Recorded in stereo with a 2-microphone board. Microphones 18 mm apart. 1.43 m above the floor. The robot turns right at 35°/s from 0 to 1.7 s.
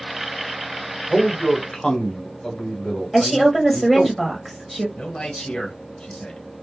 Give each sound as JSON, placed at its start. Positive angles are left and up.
{"t": 1.1, "sound": "a man speaking", "side_deg": 25, "distance_m": 1.0}
{"t": 3.1, "sound": "a woman speaking", "side_deg": 5, "distance_m": 0.8}
{"t": 5.0, "sound": "a man speaking", "side_deg": 60, "distance_m": 1.0}